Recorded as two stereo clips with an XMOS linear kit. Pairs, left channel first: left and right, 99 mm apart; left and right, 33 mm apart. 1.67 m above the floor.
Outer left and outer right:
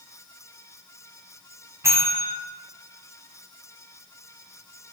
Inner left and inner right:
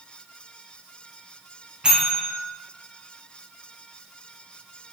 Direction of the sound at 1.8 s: 25° right (ahead or behind).